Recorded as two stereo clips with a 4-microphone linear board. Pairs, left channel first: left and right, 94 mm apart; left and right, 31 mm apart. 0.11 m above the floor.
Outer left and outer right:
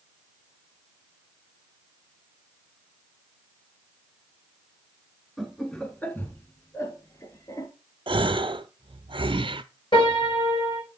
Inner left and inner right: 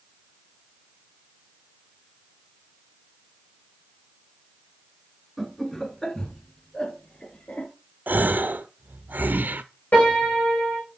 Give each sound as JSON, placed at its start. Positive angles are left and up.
{"t": 5.4, "sound": "laughter", "side_deg": 5, "distance_m": 1.5}
{"t": 8.1, "sound": "a gasp", "side_deg": -70, "distance_m": 0.6}
{"t": 9.9, "sound": "a piano", "side_deg": 60, "distance_m": 5.0}